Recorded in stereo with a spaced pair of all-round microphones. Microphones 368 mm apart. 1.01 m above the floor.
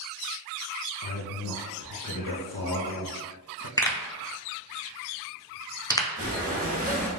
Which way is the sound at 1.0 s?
60° left (ahead or behind).